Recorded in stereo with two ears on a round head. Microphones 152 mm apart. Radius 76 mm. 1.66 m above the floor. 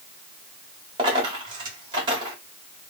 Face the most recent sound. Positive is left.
turn(degrees=-30)  # may be behind; listen again after turning